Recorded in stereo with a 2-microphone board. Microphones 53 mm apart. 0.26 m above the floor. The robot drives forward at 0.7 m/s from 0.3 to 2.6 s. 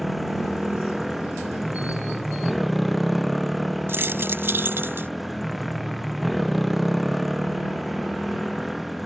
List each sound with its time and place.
0.0 s a motorcycle: centre (ahead or behind)
3.9 s keys jangling: 50° right (ahead or behind)